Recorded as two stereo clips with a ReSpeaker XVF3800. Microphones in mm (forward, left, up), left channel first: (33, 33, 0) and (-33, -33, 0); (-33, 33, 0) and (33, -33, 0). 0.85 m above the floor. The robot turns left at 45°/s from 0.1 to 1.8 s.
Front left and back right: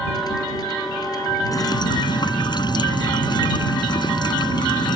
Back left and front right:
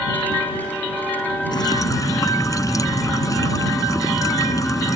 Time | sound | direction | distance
1.5 | dripping | 95° left | ?